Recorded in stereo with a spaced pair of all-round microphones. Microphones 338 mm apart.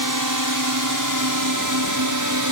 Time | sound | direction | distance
0.0 | a drone | 70° right (ahead or behind) | ?